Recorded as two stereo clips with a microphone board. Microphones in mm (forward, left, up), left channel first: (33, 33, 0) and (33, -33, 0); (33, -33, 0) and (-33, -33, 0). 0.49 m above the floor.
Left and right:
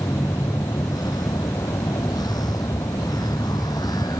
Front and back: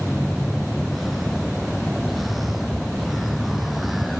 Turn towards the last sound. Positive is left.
turn(degrees=90)